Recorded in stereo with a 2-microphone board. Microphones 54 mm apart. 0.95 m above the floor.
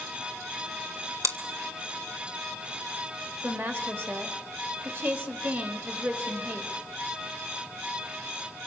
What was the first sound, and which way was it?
Chewing, 75° right (ahead or behind).